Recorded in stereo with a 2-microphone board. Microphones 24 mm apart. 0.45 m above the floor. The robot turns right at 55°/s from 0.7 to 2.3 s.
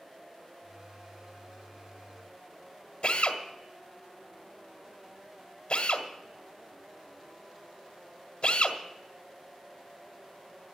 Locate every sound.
3.0 s a drill: 55° left (ahead or behind), 1.7 m